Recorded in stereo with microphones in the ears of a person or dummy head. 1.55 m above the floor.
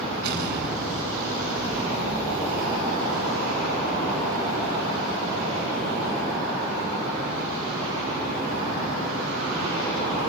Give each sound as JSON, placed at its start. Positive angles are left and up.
{"t": 0.2, "sound": "an explosion", "side_deg": -60, "distance_m": 10.0}